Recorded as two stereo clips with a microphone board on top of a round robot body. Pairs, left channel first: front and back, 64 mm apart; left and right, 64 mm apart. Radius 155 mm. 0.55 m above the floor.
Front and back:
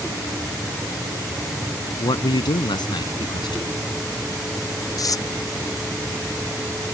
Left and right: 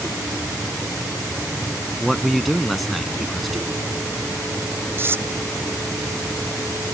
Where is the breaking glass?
No breaking glass in this recording.